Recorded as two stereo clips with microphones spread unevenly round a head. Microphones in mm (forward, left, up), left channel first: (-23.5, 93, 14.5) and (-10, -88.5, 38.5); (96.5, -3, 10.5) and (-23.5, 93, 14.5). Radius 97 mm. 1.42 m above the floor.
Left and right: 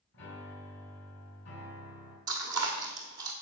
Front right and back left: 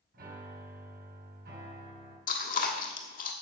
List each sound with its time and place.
0.1 s a piano: 120° left, 5 m
2.3 s chewing: 25° right, 1.4 m